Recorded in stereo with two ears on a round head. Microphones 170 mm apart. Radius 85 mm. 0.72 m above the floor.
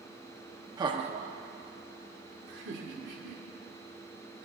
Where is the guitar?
I don't hear a guitar.